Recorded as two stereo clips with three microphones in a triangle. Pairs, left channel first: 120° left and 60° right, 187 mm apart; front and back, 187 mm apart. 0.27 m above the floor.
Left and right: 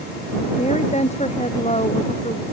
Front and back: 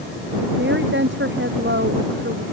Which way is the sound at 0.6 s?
175° left.